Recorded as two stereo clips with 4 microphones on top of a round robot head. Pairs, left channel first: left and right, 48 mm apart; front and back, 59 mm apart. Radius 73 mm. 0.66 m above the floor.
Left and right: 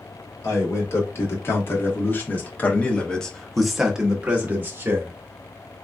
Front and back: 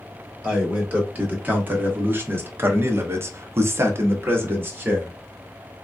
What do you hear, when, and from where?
0.4 s a man speaking: 120° left, 1.9 m; by 5.1 s 125° right, 1.1 m